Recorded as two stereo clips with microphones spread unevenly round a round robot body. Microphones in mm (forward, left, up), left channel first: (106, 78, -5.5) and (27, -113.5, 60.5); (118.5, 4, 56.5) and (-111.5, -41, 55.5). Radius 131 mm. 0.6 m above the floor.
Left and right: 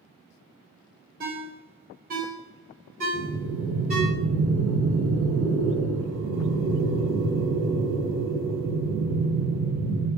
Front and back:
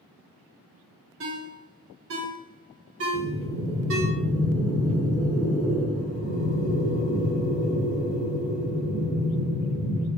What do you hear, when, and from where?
1.2 s a ringtone: 170° right, 0.9 m
3.1 s breathing: 100° right, 1.1 m